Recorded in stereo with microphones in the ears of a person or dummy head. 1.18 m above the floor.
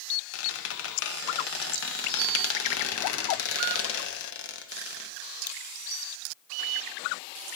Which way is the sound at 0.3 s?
70° left (ahead or behind).